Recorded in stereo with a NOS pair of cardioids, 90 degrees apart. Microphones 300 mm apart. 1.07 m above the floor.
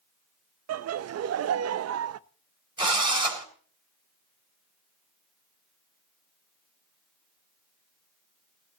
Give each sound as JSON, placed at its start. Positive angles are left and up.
{"t": 0.7, "sound": "laughter", "azimuth_deg": -55, "distance_m": 0.9}
{"t": 2.8, "sound": "a drill", "azimuth_deg": -15, "distance_m": 4.0}